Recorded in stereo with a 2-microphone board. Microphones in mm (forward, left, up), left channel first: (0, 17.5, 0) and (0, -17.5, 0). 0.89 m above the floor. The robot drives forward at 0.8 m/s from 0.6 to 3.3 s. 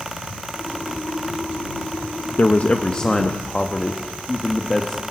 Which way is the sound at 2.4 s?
50° left (ahead or behind).